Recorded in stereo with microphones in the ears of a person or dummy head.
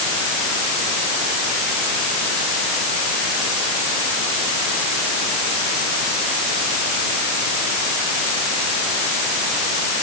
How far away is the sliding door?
No sliding door in this recording.